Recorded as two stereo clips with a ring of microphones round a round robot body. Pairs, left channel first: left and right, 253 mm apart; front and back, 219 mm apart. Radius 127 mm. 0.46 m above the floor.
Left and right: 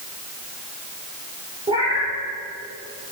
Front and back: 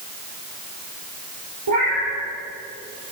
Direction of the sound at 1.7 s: 160° right.